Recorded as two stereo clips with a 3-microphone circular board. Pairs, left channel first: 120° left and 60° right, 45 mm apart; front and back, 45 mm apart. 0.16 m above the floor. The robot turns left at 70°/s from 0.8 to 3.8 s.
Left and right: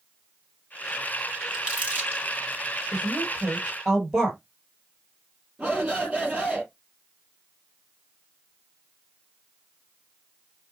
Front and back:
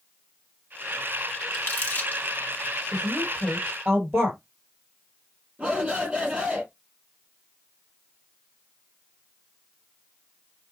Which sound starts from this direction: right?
A woman speaking, at 2.9 s.